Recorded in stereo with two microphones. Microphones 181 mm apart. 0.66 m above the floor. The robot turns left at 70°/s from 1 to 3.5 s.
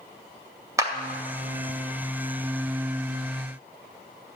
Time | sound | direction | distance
0.8 | a clap | 15° right (ahead or behind) | 2 m